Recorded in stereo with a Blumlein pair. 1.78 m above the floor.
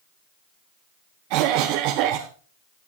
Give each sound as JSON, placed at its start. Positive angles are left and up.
{"t": 1.3, "sound": "a cough", "azimuth_deg": -40, "distance_m": 1.0}